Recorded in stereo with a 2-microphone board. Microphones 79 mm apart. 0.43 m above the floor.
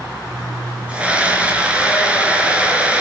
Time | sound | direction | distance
0.9 | a scream | 15° right (ahead or behind) | 5.5 m